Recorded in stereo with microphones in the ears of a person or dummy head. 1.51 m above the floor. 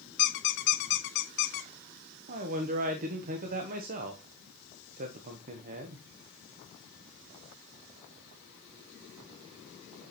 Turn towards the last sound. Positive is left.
turn(degrees=-40)  # may be behind; listen again after turning